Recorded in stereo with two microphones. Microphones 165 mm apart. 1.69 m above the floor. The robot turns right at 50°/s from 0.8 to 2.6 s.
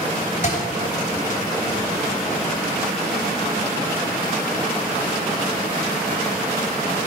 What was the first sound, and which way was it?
A thud, 55° left (ahead or behind).